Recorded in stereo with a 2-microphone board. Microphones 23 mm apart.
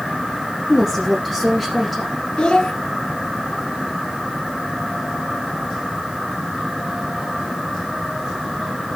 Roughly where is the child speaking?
Left.